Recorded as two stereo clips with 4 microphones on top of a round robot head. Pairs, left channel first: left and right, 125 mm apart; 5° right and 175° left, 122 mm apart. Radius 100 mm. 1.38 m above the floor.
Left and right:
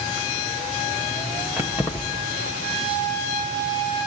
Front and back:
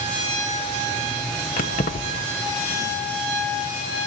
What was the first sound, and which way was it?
Keys jangling, 10° right.